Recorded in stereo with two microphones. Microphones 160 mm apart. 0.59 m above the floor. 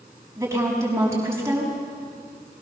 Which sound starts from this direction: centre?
A woman speaking, at 0.4 s.